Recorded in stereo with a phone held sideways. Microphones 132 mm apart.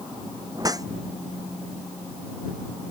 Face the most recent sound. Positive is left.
turn(degrees=-30)  # may be behind; listen again after turning